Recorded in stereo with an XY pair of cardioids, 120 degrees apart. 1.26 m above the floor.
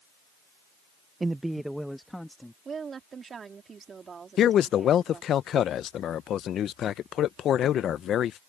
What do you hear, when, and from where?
1.2 s a man speaking: 15° right; by 2.5 s 5° left
2.6 s a woman speaking: 35° right
4.4 s a man speaking: 55° left